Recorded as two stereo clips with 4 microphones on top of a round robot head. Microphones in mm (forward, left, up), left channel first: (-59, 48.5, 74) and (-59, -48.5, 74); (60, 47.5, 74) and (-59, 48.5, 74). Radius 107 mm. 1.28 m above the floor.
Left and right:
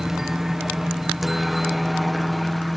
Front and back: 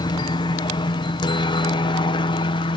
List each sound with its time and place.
0.0 s a helicopter: 5° right; by 2.8 s straight ahead